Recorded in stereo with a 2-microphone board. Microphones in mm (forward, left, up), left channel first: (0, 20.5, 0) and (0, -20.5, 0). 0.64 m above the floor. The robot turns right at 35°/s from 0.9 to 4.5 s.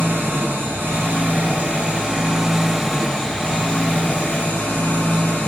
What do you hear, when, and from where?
0.0 s an engine running: 65° right, 3 m; by 5.5 s 60° left, 3 m